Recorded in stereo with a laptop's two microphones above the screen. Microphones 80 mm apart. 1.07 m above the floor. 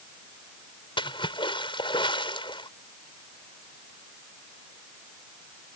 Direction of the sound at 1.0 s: 75° left (ahead or behind).